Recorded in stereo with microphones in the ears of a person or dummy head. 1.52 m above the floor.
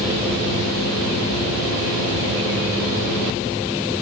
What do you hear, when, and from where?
Only background noise.